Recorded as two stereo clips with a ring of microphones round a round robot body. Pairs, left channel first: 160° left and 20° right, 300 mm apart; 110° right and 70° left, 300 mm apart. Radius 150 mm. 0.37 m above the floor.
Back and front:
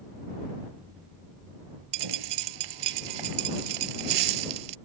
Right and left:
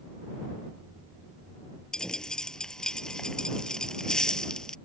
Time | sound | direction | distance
1.9 | a dropped coin | 25° right | ?